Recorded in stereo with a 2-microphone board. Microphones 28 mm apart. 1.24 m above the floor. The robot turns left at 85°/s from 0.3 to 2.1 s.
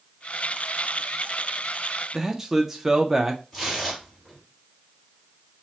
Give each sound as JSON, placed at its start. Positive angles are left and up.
{"t": 2.1, "sound": "a man speaking", "side_deg": -10, "distance_m": 0.6}
{"t": 3.5, "sound": "tearing paper", "side_deg": 0, "distance_m": 2.5}